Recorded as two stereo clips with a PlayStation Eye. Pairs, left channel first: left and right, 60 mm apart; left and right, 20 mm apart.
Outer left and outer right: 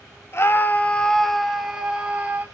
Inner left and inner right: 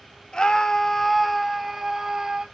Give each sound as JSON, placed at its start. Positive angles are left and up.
{"t": 0.3, "sound": "a scream", "side_deg": 45, "distance_m": 1.7}